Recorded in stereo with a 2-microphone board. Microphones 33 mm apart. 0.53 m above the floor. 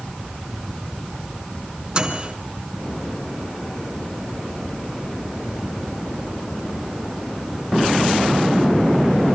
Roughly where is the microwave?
Right.